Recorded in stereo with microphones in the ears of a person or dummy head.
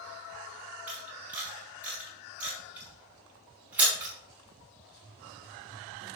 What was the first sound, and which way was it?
A camera shutter, 10° right (ahead or behind).